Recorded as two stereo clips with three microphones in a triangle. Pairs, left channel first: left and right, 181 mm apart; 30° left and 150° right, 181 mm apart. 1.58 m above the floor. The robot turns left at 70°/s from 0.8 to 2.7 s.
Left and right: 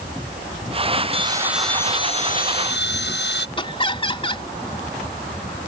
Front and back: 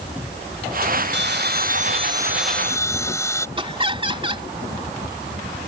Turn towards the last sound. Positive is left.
turn(degrees=150)